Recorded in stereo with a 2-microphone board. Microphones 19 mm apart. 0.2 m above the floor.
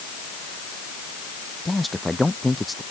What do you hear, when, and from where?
1.6 s a man speaking: 5° left (ahead or behind)